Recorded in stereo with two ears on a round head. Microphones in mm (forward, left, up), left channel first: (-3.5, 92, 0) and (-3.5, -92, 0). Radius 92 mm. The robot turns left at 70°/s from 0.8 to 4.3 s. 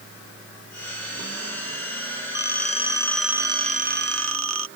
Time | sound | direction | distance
2.4 | a phone ringing | 60° left | ?